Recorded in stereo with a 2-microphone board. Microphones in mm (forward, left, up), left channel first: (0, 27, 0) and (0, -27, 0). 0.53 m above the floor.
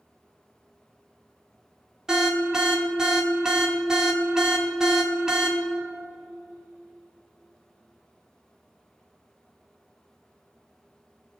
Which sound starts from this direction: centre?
An alarm, at 2.1 s.